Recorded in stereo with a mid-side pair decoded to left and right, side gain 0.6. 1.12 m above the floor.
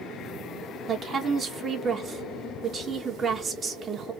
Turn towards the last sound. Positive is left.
turn(degrees=-35)